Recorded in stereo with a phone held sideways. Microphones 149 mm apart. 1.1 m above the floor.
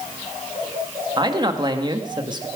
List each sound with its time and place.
1.2 s a man speaking: 30° right (ahead or behind), 1.6 m